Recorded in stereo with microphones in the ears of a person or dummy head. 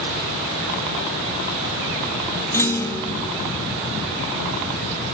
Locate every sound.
2.5 s a clunk: 10° left (ahead or behind), 1.1 m